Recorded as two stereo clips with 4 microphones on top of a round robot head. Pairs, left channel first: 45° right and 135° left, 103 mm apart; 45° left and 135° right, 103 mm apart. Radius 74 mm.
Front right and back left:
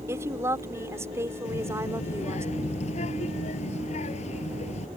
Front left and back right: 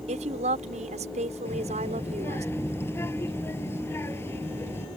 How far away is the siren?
No siren in this recording.